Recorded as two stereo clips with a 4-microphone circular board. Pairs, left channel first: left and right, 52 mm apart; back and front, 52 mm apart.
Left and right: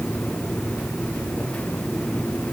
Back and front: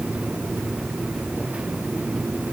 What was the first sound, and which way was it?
Only background noise.